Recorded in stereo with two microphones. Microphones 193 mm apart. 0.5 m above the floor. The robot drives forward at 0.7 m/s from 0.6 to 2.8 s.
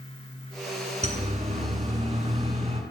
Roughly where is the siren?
Right.